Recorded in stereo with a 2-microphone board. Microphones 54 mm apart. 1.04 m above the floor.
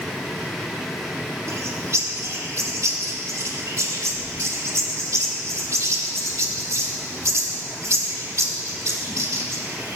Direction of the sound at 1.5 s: 65° right (ahead or behind).